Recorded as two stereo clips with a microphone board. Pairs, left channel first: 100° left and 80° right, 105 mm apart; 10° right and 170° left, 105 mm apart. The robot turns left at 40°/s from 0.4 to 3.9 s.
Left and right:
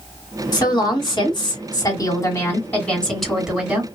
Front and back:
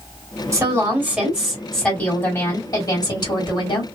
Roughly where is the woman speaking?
Behind left.